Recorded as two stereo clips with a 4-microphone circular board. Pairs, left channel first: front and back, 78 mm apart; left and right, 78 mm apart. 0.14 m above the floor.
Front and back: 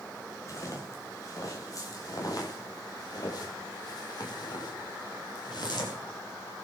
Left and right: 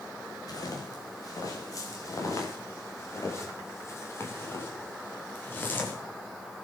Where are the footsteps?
50° left, 7 m; by 6.0 s 25° left, 6 m.